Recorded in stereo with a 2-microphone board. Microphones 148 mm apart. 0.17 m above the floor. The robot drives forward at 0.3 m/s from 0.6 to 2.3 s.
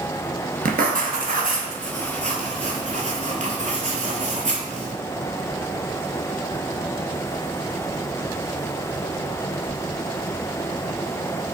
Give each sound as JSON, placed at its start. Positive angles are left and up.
{"t": 0.7, "sound": "writing", "side_deg": -75, "distance_m": 0.6}